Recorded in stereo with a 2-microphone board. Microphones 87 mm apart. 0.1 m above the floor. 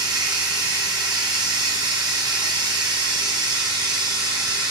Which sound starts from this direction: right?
Running water, at 0.0 s.